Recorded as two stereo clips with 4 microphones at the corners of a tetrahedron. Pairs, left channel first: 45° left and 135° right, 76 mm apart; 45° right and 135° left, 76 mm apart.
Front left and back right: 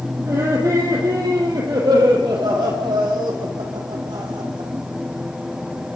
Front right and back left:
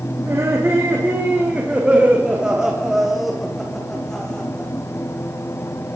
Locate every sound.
0.2 s laughter: 175° right, 5.5 m; by 4.7 s 125° right, 6.5 m